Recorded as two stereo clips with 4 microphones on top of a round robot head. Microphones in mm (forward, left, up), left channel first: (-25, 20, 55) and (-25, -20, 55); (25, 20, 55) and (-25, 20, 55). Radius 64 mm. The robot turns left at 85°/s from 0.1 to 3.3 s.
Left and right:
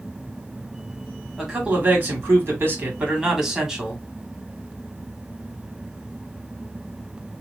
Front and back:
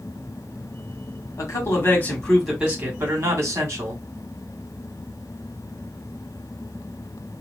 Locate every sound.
1.4 s a man speaking: straight ahead, 2 m; by 4.0 s 165° right, 2 m